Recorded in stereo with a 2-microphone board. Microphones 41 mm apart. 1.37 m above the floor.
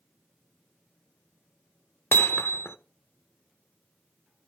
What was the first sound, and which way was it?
Hammering, 60° left (ahead or behind).